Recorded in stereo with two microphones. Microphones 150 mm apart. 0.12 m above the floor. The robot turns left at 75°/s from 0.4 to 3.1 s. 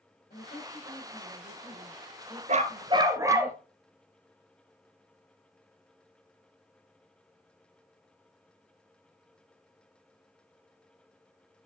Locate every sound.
0.3 s a woman speaking: 110° left, 6 m; by 3.5 s 90° right, 6 m
2.5 s a dog barking: 110° right, 0.8 m; by 3.6 s 155° right, 0.8 m